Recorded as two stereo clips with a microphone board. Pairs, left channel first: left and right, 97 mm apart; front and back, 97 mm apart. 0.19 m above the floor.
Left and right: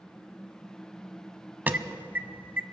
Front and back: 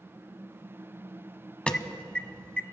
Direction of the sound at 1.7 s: 60° right.